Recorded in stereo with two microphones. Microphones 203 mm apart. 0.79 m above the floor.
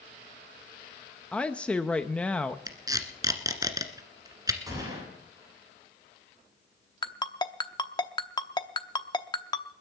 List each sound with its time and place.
1.3 s a woman speaking: 5° left (ahead or behind), 0.6 m
2.7 s tape being pulled: 20° right (ahead or behind), 1.6 m
4.7 s a gunshot: 15° right (ahead or behind), 9 m
7.0 s a ringtone: 20° left (ahead or behind), 0.8 m